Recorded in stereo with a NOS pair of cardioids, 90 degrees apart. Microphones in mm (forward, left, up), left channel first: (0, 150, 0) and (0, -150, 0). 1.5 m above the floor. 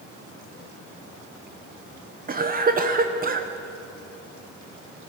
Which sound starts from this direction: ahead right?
A cough, at 2.3 s.